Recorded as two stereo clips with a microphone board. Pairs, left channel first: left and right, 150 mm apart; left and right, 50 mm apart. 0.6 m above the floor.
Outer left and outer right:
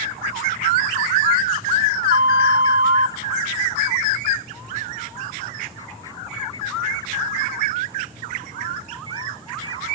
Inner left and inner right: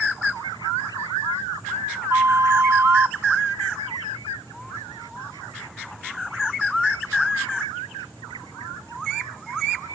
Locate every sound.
2.1 s a flute: 65° right (ahead or behind), 0.5 m